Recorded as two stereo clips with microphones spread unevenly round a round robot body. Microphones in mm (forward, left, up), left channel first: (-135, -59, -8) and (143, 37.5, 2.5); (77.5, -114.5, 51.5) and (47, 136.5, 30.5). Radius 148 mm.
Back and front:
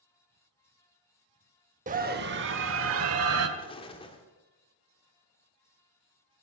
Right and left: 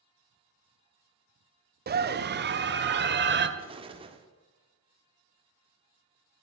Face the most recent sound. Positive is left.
turn(degrees=140)